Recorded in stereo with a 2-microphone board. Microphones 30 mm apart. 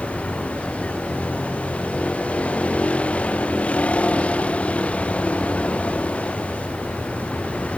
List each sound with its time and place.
0.0 s a vehicle: 45° left (ahead or behind)